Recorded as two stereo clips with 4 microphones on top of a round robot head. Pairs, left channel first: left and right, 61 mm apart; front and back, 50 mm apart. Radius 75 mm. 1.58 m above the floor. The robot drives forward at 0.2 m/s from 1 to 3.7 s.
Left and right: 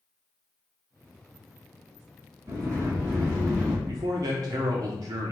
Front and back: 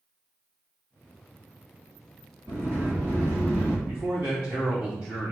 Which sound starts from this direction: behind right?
A sliding door, at 2.5 s.